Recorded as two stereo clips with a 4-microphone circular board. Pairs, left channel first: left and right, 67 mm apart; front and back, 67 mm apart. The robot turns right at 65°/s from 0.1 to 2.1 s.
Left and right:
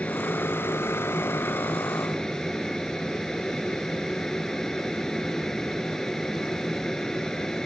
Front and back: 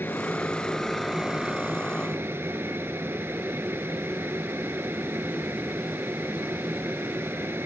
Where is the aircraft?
35° left; by 7.7 s 165° left.